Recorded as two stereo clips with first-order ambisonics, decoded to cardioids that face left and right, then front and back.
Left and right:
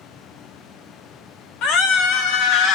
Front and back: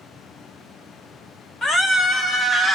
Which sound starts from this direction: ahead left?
A scream, at 1.6 s.